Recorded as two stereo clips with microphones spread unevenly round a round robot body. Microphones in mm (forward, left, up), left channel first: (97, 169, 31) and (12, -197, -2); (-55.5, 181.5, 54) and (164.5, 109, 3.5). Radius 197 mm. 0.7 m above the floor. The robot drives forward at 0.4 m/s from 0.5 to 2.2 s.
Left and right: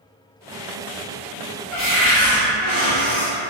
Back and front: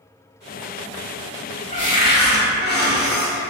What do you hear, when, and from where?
1.7 s a cupboard door: 100° left, 0.8 m; by 3.5 s 125° left, 0.8 m